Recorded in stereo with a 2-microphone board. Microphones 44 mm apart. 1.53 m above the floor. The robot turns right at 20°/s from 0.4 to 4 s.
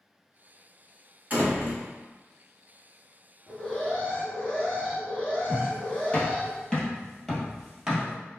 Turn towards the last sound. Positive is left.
turn(degrees=-15)  # may be behind; listen again after turning